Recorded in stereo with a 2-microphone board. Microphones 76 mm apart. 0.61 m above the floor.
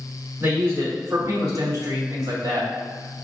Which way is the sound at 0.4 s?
35° right (ahead or behind).